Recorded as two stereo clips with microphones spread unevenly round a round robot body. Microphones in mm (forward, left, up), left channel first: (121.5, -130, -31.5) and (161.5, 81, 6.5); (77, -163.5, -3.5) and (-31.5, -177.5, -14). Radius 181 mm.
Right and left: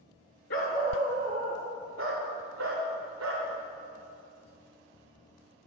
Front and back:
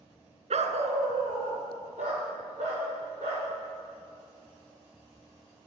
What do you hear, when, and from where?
0.5 s a dog barking: 155° right, 1.0 m; by 3.5 s 120° left, 4 m